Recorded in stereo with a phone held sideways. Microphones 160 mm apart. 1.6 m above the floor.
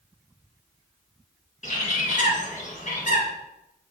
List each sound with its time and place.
1.6 s a bird: 50° left (ahead or behind), 1.5 m